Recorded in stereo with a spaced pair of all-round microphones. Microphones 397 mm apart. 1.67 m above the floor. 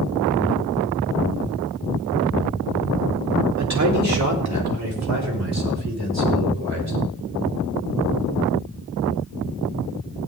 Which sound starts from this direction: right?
A man speaking, at 3.6 s.